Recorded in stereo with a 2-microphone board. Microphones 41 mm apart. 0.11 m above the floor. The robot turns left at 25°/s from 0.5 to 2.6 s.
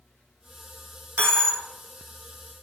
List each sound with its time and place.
1.2 s a dropped coin: 75° right (ahead or behind), 0.6 m; by 1.6 s 85° right, 0.6 m